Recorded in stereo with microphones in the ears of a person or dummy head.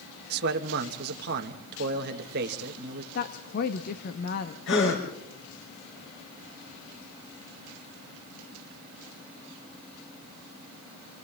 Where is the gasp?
75° left (ahead or behind), 4.5 m.